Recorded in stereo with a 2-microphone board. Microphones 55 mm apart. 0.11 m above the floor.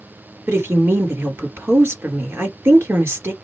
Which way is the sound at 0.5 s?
45° right (ahead or behind).